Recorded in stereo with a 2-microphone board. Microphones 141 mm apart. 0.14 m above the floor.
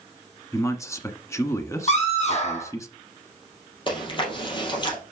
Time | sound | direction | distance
0.5 | a man speaking | 20° left (ahead or behind) | 1.0 m
1.9 | a scream | 45° left (ahead or behind) | 5 m
3.9 | chewing | 35° left (ahead or behind) | 3 m